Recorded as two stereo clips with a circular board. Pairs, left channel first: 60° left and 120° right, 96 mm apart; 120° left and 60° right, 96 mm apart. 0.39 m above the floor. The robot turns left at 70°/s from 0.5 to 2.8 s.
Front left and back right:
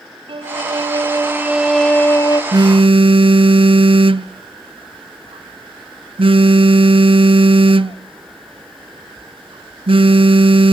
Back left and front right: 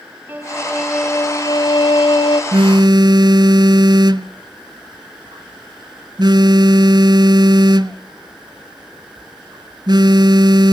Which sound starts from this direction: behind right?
A violin, at 0.3 s.